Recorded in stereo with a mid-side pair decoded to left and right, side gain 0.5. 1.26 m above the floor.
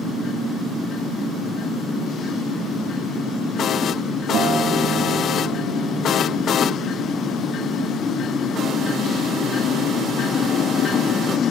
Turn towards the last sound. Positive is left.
turn(degrees=-65)